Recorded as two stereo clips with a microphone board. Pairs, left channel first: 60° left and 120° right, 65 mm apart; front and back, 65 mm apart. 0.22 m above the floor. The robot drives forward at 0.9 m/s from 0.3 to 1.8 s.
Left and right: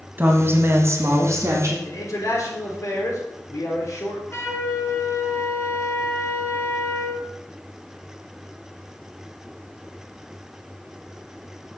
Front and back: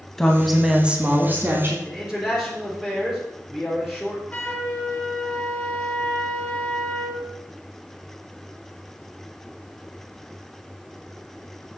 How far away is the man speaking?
About 3 m.